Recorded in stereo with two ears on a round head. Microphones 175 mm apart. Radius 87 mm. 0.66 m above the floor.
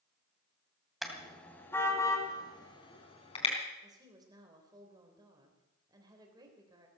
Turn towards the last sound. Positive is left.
turn(degrees=-20)  # may be behind; listen again after turning